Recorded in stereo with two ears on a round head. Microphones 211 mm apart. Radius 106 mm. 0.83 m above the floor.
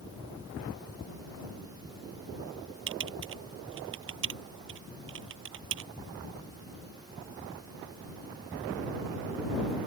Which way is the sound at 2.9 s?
60° right (ahead or behind).